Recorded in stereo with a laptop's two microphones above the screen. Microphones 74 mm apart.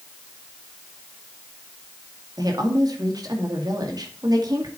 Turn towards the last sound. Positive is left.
turn(degrees=-60)  # may be behind; listen again after turning